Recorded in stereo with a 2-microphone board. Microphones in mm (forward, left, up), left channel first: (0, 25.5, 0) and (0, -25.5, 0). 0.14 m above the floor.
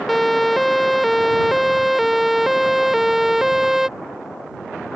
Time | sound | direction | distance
0.1 | a siren | 5° left (ahead or behind) | ?